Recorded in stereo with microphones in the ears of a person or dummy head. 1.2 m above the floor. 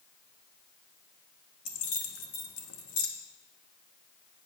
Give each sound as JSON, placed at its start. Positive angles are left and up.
{"t": 1.6, "sound": "keys jangling", "side_deg": 60, "distance_m": 1.0}